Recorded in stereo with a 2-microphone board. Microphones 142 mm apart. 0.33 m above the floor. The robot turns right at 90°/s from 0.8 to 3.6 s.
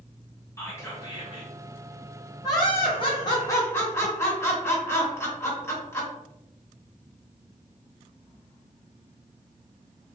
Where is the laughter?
45° left, 1.0 m; by 6.1 s 150° left, 1.0 m.